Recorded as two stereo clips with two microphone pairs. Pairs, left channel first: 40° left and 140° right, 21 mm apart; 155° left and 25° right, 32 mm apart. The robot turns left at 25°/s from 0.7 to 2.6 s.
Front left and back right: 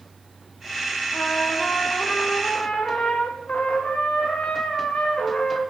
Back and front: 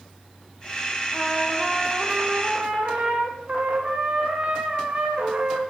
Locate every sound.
1.1 s a trumpet: 60° left, 4 m; by 5.6 s 25° left, 4 m